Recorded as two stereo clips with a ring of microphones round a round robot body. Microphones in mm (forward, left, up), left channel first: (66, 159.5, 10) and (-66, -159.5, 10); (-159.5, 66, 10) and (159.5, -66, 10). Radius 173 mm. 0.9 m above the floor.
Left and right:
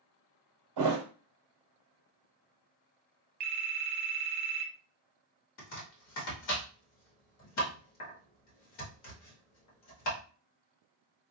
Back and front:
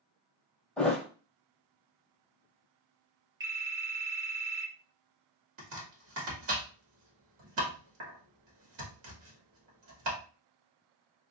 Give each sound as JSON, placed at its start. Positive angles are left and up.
{"t": 0.8, "sound": "a thud", "azimuth_deg": -115, "distance_m": 1.4}
{"t": 3.4, "sound": "a phone ringing", "azimuth_deg": -100, "distance_m": 0.8}
{"t": 5.6, "sound": "chopping", "azimuth_deg": 25, "distance_m": 1.7}